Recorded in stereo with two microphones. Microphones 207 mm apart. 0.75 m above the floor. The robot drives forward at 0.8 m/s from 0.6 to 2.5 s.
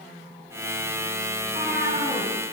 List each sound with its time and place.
1.4 s a cat meowing: 65° left (ahead or behind), 2 m; by 2.3 s 50° left (ahead or behind), 2.5 m